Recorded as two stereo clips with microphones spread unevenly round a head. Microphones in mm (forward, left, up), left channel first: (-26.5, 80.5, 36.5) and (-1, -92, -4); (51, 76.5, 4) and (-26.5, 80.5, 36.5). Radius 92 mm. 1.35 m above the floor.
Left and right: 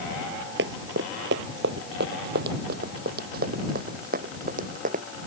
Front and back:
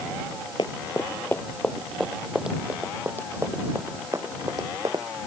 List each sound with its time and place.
0.6 s running footsteps: 75° right; by 5.0 s 125° right